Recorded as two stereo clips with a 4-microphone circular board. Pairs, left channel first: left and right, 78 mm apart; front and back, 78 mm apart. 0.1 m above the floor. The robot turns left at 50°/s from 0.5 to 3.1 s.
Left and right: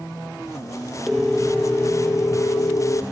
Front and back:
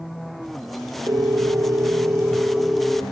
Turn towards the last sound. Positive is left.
turn(degrees=80)